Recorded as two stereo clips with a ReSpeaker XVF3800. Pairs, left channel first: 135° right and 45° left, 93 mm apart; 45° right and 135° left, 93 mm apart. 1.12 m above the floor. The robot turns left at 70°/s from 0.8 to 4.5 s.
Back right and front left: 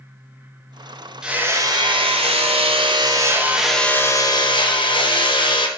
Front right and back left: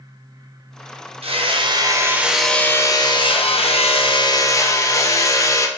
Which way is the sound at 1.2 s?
130° left.